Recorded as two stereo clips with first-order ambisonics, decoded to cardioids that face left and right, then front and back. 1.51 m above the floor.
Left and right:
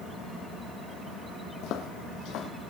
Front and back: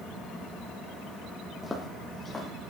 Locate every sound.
1.6 s footsteps: 80° left, 2.5 m